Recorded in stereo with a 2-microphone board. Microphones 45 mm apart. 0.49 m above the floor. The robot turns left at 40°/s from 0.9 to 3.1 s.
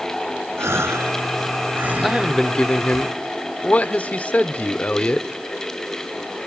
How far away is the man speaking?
About 1.0 m.